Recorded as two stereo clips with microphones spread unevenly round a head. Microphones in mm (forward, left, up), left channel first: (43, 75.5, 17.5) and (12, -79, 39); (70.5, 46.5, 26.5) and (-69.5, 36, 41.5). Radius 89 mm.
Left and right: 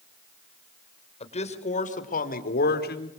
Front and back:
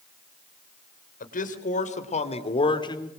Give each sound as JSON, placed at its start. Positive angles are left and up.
{"t": 1.2, "sound": "a man speaking", "azimuth_deg": 30, "distance_m": 3.5}